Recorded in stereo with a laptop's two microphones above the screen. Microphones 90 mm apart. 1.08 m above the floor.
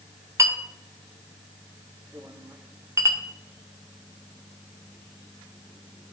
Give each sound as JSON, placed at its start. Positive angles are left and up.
{"t": 0.4, "sound": "a clink", "side_deg": -30, "distance_m": 0.6}